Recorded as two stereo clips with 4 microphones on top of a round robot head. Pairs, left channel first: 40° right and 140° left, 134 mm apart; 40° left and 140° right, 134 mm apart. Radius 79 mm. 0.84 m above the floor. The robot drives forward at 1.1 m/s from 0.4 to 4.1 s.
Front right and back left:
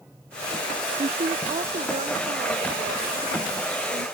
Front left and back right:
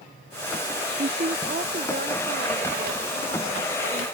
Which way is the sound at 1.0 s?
170° right.